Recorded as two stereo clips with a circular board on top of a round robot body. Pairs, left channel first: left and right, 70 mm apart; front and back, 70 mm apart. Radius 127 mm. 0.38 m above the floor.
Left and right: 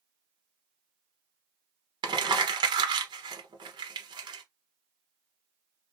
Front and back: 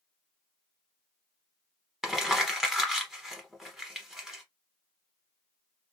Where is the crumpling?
95° right, 0.9 m.